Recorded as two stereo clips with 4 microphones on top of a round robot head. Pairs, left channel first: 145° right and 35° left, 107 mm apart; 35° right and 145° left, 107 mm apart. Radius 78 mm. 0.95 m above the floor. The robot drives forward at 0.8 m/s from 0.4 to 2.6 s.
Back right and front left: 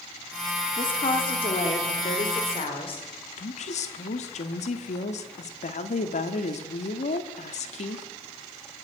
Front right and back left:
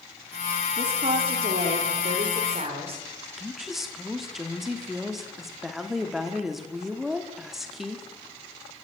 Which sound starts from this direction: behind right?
A woman speaking, at 3.4 s.